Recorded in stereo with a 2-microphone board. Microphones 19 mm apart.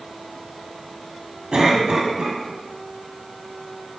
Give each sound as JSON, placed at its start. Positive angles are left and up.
{"t": 1.5, "sound": "a cough", "side_deg": -50, "distance_m": 2.0}